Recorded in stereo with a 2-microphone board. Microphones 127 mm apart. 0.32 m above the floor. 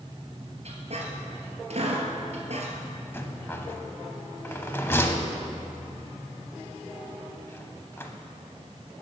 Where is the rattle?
20° left (ahead or behind), 0.7 m.